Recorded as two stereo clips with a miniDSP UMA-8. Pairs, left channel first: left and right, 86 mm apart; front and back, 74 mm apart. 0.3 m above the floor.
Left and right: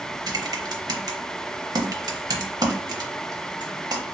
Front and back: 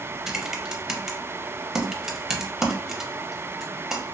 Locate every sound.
0.3 s typing on a keyboard: 100° right, 0.5 m